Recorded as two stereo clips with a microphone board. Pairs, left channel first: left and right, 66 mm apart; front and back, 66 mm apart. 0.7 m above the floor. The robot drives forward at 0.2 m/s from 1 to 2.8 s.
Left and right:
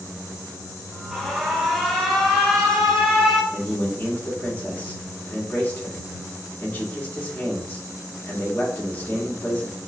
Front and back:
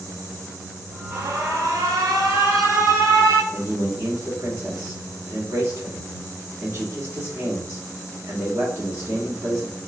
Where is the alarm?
175° left, 0.8 m.